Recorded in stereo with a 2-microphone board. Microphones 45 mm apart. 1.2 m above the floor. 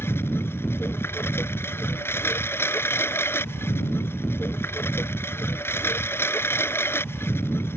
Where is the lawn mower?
65° left (ahead or behind).